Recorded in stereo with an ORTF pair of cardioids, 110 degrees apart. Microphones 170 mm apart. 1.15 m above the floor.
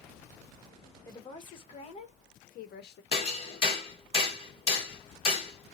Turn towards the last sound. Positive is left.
turn(degrees=35)